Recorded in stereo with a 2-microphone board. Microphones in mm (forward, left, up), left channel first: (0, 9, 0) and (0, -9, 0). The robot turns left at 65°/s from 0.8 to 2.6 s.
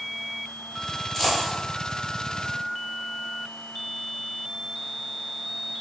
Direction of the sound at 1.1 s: 25° left (ahead or behind).